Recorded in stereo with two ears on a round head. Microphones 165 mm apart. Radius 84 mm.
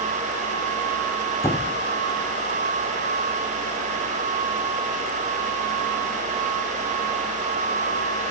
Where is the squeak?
15° left (ahead or behind), 1.2 m.